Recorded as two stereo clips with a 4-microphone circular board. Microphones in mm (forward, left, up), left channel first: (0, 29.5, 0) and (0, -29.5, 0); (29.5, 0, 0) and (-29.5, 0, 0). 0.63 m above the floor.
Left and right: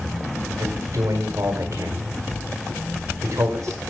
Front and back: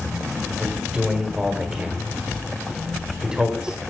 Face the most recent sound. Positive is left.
turn(degrees=-105)